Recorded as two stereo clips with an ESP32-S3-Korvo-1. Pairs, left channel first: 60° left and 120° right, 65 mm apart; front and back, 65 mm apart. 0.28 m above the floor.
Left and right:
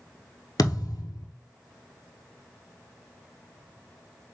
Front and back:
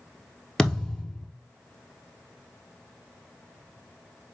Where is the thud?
80° left, 1.2 m.